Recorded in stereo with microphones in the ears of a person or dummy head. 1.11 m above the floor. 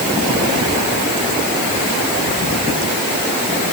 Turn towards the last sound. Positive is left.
No sound to turn to.